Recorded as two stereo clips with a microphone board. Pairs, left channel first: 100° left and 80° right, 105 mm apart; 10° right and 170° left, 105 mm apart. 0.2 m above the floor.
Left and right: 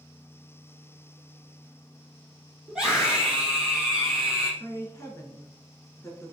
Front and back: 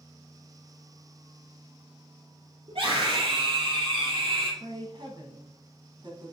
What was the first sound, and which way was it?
A scream, 160° right.